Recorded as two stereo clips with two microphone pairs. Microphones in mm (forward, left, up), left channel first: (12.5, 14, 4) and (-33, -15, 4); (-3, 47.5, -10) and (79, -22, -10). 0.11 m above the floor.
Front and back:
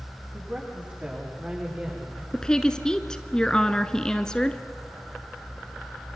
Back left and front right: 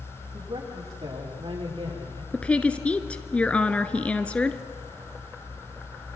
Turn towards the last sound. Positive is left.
turn(degrees=80)